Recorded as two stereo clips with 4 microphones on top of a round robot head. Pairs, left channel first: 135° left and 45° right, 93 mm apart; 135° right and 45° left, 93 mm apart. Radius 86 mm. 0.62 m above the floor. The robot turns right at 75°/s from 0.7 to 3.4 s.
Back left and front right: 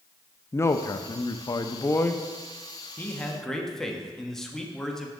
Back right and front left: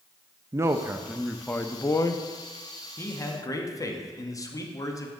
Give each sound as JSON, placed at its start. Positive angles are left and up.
{"t": 0.5, "sound": "a man speaking", "azimuth_deg": 90, "distance_m": 0.7}
{"t": 3.0, "sound": "a man speaking", "azimuth_deg": -175, "distance_m": 1.2}